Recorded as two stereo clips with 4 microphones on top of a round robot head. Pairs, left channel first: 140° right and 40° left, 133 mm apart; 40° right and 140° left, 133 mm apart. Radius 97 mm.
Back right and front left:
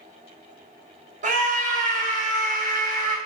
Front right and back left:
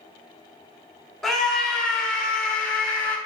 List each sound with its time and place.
1.2 s a scream: 50° left, 3 m; by 3.2 s 40° left, 4.5 m